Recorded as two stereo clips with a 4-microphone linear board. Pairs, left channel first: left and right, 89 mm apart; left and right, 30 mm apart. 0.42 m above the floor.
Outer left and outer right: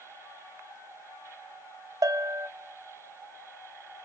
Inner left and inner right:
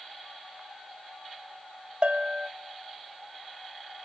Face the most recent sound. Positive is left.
turn(degrees=-40)  # may be behind; listen again after turning